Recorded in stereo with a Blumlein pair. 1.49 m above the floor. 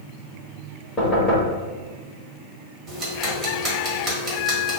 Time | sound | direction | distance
1.0 | knocking | 20° left | 1.8 m
2.9 | ticking | 15° right | 1.6 m